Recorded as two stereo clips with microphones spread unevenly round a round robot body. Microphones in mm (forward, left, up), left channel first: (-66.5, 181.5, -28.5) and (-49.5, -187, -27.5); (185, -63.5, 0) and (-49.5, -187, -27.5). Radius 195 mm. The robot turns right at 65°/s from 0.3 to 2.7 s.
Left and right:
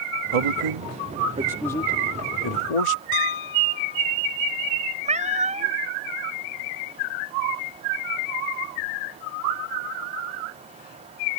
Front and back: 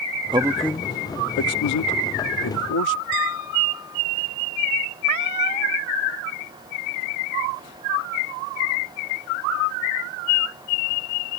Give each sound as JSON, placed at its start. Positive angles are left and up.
{"t": 0.3, "sound": "a man speaking", "azimuth_deg": -80}
{"t": 3.1, "sound": "a piano", "azimuth_deg": 80}
{"t": 5.0, "sound": "a cat meowing", "azimuth_deg": -160}